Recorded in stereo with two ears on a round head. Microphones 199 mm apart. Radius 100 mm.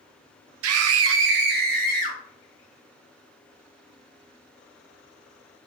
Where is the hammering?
No hammering in this recording.